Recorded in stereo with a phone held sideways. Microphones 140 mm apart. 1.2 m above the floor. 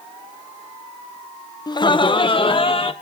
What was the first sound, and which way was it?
Laughter, 30° left (ahead or behind).